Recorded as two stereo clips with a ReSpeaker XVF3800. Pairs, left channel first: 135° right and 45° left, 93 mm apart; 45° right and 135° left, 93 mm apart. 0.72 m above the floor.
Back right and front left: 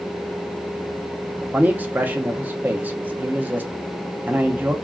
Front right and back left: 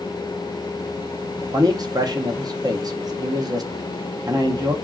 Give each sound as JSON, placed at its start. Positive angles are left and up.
{"t": 1.4, "sound": "a man speaking", "azimuth_deg": 110, "distance_m": 0.6}